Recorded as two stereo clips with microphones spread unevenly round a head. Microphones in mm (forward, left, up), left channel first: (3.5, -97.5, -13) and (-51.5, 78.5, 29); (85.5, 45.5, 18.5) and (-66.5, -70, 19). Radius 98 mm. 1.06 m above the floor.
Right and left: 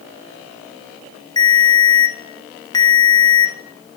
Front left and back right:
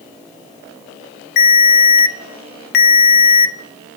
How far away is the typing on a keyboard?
No typing on a keyboard in this recording.